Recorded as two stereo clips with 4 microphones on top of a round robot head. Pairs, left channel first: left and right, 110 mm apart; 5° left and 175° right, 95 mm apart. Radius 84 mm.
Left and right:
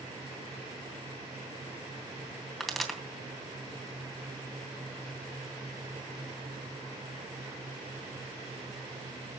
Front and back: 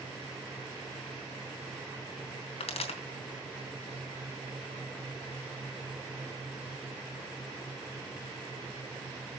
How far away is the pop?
About 3 m.